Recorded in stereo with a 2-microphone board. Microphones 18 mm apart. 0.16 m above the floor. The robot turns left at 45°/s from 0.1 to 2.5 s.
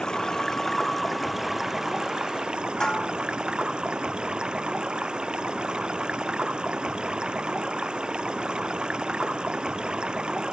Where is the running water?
50° left; by 10.5 s 55° right.